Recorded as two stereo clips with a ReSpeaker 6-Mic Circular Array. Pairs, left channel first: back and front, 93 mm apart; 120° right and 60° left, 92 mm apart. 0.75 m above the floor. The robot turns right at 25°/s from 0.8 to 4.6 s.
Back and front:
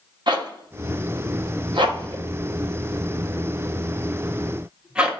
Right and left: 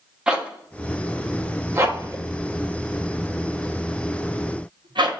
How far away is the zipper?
About 0.6 m.